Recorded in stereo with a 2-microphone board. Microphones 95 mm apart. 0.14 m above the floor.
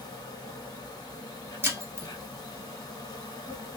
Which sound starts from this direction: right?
Breaking glass, at 1.6 s.